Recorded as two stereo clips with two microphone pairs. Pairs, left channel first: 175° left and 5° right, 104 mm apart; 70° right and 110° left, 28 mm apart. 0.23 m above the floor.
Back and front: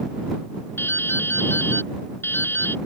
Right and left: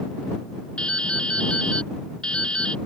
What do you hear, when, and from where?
0.8 s dripping: 120° right